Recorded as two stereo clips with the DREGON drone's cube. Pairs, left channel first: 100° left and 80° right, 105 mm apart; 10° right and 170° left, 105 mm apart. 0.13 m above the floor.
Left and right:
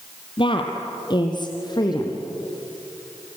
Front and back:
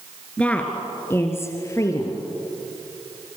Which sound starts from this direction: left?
A woman speaking, at 0.4 s.